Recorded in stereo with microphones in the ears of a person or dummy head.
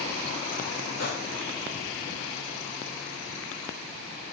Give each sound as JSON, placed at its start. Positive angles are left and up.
{"t": 1.0, "sound": "a gunshot", "side_deg": 55, "distance_m": 3.0}